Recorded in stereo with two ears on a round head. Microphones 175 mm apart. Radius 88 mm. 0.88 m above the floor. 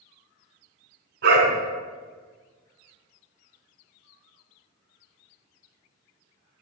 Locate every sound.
1.2 s a dog barking: 55° right (ahead or behind), 2.5 m